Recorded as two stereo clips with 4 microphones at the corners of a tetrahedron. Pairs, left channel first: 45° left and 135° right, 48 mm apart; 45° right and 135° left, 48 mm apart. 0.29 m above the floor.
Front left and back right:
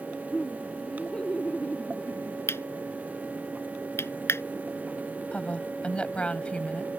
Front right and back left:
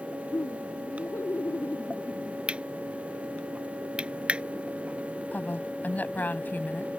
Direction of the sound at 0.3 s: 35° right.